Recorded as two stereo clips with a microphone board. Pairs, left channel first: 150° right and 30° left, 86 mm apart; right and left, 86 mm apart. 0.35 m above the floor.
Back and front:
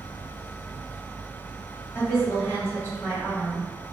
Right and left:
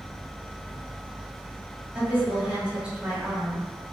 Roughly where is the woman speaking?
Behind.